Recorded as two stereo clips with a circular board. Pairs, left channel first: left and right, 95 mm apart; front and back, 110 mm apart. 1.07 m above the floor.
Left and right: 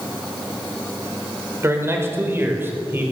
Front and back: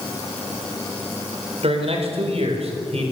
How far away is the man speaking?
About 4.5 m.